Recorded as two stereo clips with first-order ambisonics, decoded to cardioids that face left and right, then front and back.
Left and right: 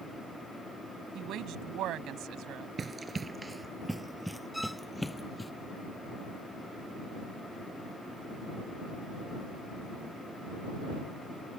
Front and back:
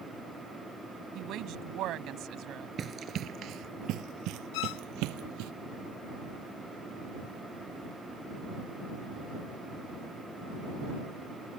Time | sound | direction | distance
1.1 | a woman speaking | 135° right | ?
2.8 | running footsteps | 145° right | ?
4.5 | a violin | straight ahead | ?